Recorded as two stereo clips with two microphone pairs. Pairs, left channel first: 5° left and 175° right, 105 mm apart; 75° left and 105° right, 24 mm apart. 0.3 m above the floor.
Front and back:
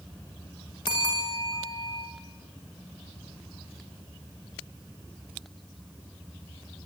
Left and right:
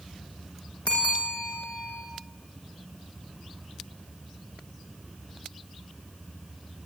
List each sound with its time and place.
0.9 s a bell: 50° left, 9.5 m